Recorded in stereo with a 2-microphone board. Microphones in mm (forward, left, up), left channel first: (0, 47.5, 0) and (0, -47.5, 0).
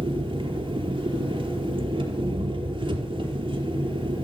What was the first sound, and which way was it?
An engine running, 60° right (ahead or behind).